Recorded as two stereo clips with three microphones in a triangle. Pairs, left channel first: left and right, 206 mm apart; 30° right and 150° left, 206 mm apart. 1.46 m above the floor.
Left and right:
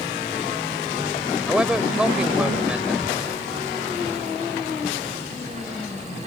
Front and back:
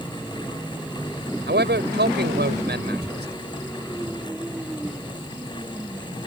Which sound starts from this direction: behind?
A man speaking, at 1.5 s.